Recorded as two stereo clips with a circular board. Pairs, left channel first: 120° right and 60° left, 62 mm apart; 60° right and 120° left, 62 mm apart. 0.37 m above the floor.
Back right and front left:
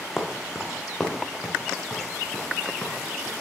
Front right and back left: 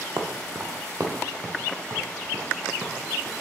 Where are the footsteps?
155° left, 1.3 m; by 3.3 s 165° left, 3.5 m.